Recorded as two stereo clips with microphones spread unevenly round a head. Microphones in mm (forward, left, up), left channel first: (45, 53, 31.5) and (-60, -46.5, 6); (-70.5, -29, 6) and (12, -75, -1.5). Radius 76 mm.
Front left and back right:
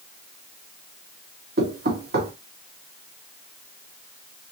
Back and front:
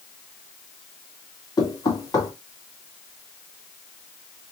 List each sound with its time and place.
1.6 s knocking: 160° right, 1.5 m